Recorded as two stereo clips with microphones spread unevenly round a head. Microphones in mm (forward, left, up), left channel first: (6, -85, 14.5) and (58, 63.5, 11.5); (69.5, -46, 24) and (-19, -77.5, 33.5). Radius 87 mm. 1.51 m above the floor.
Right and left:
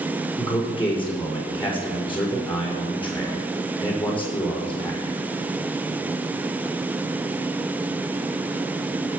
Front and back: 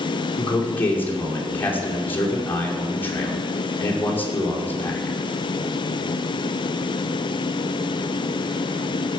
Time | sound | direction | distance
0.4 | a man speaking | 50° right | 5.5 m